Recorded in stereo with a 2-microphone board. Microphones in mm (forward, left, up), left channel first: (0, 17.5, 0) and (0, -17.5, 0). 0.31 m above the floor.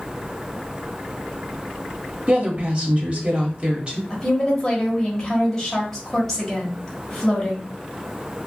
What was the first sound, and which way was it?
A woman speaking, 30° right (ahead or behind).